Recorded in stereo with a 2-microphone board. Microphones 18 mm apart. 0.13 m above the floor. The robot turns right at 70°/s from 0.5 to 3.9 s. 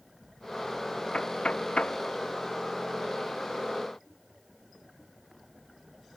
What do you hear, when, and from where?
1.1 s knocking: 55° left (ahead or behind); by 2.0 s 65° left (ahead or behind)